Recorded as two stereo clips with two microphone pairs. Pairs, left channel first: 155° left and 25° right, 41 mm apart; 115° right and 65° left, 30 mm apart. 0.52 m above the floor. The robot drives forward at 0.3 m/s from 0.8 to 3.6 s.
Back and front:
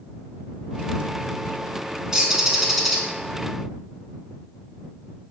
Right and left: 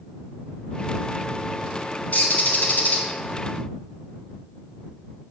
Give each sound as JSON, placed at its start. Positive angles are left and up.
{"t": 2.1, "sound": "a bird", "azimuth_deg": -95, "distance_m": 0.7}